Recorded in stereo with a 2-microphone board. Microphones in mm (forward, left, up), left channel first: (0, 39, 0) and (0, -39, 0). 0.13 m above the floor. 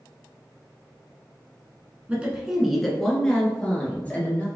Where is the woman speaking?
15° right (ahead or behind), 1.1 m; by 4.5 s 20° left (ahead or behind), 2 m.